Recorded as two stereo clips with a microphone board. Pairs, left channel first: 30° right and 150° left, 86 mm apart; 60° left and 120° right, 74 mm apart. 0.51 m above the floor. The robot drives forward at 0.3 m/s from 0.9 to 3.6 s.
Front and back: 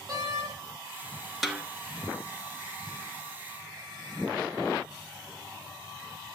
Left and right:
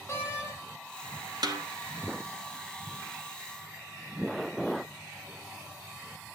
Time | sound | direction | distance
0.1 | a door slam | 110° left | 1.9 m
1.4 | a snare drum | 120° right | 1.5 m